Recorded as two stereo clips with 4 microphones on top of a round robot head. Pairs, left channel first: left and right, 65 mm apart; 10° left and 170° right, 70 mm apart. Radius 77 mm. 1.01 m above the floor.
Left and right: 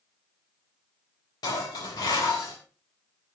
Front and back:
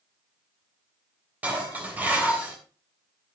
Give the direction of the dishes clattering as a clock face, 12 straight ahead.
8 o'clock.